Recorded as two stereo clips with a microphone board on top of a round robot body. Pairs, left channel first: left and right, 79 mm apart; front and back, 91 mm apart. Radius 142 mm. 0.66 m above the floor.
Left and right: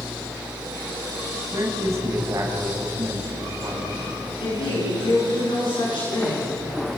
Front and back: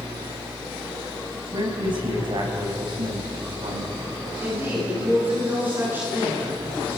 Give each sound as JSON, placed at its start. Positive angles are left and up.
{"t": 1.5, "sound": "a man speaking", "azimuth_deg": -145, "distance_m": 6.0}
{"t": 4.4, "sound": "a woman speaking", "azimuth_deg": 110, "distance_m": 9.5}